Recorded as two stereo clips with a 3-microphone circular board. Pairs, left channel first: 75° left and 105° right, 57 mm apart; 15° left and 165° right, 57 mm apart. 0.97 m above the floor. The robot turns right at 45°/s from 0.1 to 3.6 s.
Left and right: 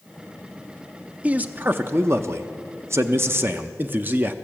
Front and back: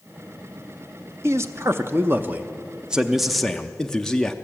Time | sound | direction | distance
1.2 | a man speaking | 165° right | 0.6 m